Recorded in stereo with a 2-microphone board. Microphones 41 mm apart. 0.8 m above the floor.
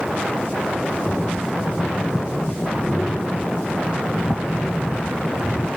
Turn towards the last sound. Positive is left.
turn(degrees=30)  # may be behind; listen again after turning